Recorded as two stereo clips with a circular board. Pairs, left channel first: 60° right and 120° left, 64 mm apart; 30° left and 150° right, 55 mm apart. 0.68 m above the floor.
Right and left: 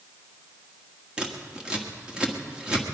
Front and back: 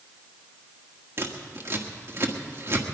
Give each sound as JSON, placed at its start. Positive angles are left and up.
{"t": 1.2, "sound": "scissors", "azimuth_deg": -170, "distance_m": 1.3}